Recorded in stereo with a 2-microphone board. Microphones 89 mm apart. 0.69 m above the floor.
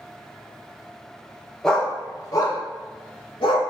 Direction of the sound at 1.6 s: 5° left (ahead or behind).